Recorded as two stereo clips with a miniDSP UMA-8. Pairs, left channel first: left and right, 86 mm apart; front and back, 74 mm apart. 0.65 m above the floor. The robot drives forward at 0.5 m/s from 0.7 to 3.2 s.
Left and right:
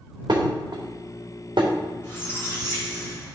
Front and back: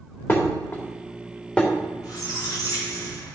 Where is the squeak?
30° left, 2.5 m; by 3.4 s 35° left, 2 m.